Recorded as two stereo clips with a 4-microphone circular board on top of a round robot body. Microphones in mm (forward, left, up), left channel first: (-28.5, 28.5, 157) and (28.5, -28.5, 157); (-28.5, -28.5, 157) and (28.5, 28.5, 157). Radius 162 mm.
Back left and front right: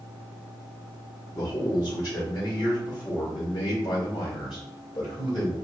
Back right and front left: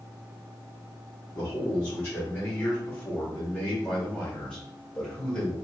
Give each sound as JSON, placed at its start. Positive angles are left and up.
{"t": 1.3, "sound": "a man speaking", "azimuth_deg": 160, "distance_m": 2.0}